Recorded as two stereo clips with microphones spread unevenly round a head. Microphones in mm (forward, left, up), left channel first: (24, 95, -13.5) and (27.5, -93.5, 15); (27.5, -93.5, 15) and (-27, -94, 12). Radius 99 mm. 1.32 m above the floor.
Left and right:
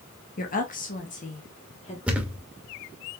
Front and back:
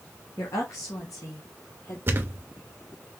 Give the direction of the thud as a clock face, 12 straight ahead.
5 o'clock.